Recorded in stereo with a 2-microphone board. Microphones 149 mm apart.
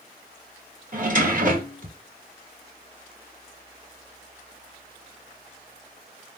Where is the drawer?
60° right (ahead or behind), 1.6 m.